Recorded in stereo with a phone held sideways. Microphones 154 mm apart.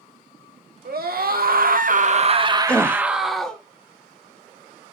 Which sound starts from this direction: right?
A scream, at 0.8 s.